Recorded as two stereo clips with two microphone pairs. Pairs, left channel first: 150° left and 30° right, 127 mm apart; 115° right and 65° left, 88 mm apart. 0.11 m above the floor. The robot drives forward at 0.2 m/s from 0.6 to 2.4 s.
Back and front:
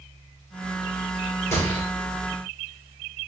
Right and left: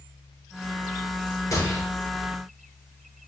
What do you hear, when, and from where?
1.5 s a gunshot: 150° right, 1.8 m; by 1.8 s 155° right, 1.8 m